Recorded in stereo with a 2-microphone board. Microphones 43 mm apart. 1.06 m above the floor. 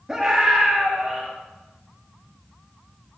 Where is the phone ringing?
No phone ringing in this recording.